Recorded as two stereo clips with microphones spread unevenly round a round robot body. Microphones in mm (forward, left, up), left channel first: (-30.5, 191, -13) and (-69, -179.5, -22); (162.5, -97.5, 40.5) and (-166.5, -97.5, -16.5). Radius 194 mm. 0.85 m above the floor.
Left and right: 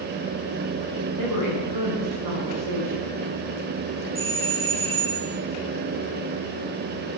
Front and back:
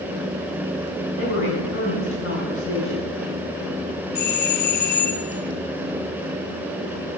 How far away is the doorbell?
About 1.1 m.